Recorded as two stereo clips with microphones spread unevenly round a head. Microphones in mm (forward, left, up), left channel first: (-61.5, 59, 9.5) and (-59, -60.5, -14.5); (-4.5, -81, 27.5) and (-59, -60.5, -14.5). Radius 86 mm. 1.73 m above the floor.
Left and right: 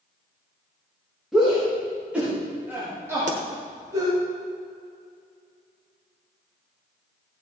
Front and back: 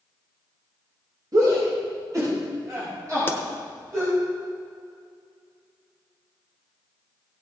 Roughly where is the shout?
Behind.